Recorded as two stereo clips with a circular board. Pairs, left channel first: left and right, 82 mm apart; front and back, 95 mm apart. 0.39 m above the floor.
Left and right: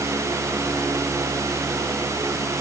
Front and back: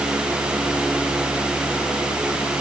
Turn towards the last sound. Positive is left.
No sound to turn to.